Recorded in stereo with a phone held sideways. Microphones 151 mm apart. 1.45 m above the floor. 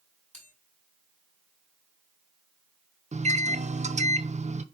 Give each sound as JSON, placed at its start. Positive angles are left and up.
{"t": 0.3, "sound": "a bell", "side_deg": -55, "distance_m": 6.0}
{"t": 3.1, "sound": "a microwave", "side_deg": -50, "distance_m": 0.5}